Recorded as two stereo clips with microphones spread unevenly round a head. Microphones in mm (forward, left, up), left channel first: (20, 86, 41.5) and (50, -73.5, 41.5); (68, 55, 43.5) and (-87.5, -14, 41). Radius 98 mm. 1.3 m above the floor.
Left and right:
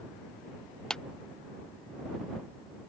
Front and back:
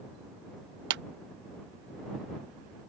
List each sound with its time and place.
0.9 s a clap: 175° right